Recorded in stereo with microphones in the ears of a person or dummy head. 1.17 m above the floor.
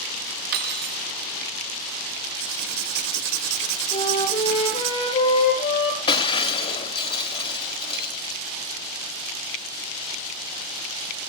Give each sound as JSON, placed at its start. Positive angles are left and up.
{"t": 0.5, "sound": "cutlery clinking", "side_deg": -55, "distance_m": 1.1}
{"t": 2.4, "sound": "writing", "side_deg": -65, "distance_m": 2.0}
{"t": 3.9, "sound": "a flute", "side_deg": 25, "distance_m": 8.0}
{"t": 6.1, "sound": "breaking glass", "side_deg": 25, "distance_m": 2.0}